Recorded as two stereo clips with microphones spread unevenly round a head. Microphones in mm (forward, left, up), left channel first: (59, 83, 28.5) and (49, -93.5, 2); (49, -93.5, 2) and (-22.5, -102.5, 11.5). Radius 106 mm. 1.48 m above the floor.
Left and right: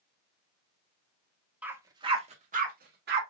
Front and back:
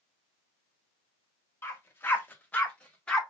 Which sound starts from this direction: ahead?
A dog barking, at 1.6 s.